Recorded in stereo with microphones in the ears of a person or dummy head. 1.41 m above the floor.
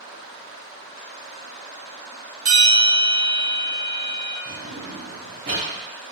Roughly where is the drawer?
Right.